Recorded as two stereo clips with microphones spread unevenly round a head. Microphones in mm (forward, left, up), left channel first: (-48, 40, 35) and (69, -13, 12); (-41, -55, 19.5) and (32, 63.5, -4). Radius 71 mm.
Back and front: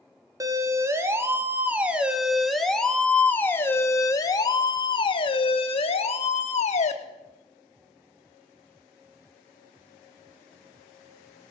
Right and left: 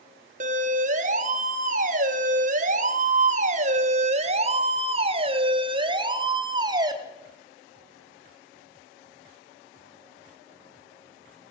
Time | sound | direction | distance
0.4 | a siren | 30° left | 3.5 m